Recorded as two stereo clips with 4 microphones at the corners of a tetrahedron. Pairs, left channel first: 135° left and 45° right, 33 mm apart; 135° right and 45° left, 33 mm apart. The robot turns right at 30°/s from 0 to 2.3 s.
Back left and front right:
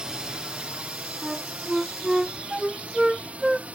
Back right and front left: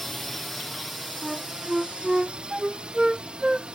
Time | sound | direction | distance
0.0 | a drone | 50° right | ?
1.2 | a flute | 25° right | ?